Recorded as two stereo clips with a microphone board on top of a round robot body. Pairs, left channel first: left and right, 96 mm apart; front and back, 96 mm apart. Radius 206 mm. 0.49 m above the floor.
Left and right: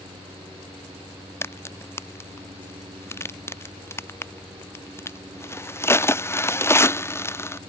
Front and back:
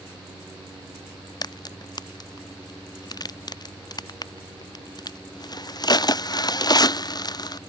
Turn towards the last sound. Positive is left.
turn(degrees=35)